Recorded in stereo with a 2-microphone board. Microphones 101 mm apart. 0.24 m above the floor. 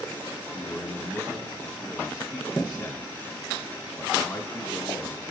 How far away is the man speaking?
About 1.9 m.